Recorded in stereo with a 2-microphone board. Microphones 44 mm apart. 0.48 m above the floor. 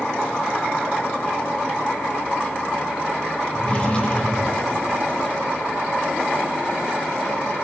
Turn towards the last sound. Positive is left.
turn(degrees=30)  # may be behind; listen again after turning